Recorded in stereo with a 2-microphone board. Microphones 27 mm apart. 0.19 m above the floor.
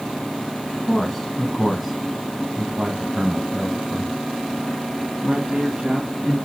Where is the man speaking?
10° left (ahead or behind), 1.7 m; by 6.4 s 45° right (ahead or behind), 3 m.